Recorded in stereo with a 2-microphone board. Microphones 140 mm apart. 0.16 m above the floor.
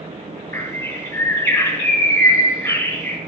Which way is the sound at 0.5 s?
25° left (ahead or behind).